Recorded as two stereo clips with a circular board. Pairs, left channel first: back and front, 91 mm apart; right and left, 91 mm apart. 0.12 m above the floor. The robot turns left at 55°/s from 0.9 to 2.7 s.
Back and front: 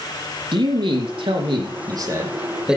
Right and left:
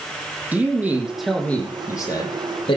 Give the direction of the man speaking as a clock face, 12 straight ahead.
11 o'clock.